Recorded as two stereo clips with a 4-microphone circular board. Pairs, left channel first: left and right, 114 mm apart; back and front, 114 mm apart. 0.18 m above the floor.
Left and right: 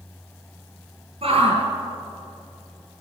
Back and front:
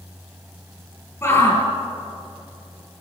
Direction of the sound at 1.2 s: 115° right.